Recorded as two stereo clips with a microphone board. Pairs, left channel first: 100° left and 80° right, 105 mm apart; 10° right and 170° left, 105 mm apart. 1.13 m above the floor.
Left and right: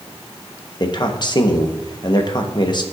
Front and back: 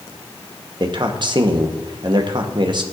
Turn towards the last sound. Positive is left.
turn(degrees=135)